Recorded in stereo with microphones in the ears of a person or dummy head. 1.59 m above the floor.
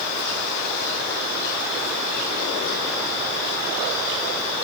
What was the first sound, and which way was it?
Only background noise.